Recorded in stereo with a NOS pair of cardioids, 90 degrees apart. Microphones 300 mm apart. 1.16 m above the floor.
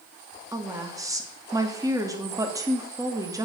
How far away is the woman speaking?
About 2.5 m.